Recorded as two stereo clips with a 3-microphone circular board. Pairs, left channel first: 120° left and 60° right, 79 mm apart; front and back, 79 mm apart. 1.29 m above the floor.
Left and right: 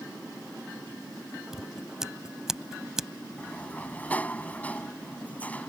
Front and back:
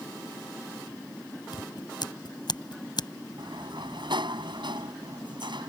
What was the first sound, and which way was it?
Scissors, 25° left.